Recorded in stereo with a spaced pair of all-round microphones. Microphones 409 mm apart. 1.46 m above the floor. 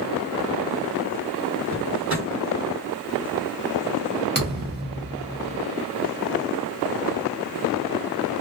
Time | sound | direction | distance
1.7 | a drawer | 30° right (ahead or behind) | 1.5 m
4.3 | a thud | 25° right (ahead or behind) | 0.8 m